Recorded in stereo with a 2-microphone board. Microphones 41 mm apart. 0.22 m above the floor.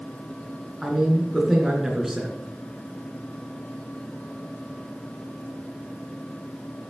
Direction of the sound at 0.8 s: 10° right (ahead or behind).